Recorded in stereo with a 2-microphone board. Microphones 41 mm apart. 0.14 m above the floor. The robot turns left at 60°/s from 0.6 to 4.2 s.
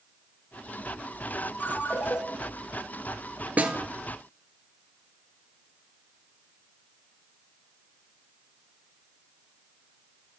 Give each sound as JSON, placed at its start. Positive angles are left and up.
{"t": 1.6, "sound": "a ringtone", "azimuth_deg": 120, "distance_m": 1.5}
{"t": 3.6, "sound": "a snare drum", "side_deg": -40, "distance_m": 1.2}